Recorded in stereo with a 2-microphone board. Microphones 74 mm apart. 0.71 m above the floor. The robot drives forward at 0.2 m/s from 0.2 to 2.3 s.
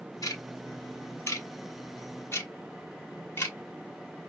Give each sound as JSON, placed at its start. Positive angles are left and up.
{"t": 0.2, "sound": "ticking", "side_deg": 55, "distance_m": 0.6}